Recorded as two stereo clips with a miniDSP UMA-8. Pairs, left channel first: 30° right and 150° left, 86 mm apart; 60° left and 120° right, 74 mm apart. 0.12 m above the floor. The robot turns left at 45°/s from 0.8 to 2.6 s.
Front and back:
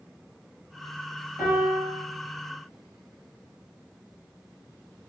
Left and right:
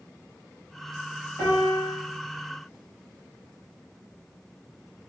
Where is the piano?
95° left, 1.5 m; by 1.9 s 70° left, 1.5 m.